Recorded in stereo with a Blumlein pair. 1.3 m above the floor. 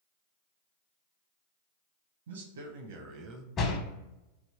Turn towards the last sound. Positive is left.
turn(degrees=25)